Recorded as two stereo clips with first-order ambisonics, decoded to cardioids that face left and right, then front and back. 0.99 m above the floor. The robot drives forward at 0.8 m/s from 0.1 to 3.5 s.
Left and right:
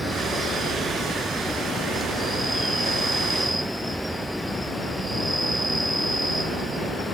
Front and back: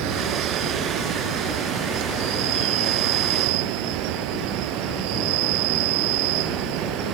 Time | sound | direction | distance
0.0 | an insect | 175° right | ?